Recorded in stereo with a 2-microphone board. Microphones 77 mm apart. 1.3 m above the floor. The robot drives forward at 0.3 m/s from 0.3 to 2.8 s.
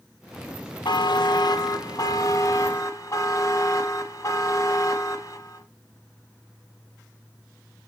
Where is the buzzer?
75° left (ahead or behind), 0.7 m; by 5.6 s 45° left (ahead or behind), 1.0 m.